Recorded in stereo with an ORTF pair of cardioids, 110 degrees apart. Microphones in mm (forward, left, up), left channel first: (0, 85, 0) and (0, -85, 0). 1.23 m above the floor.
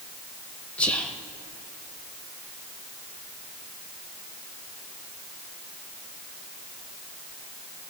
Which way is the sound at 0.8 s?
5° left.